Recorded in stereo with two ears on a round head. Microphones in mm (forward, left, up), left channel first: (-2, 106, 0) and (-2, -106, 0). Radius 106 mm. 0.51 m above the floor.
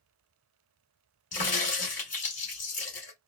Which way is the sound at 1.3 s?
35° left (ahead or behind).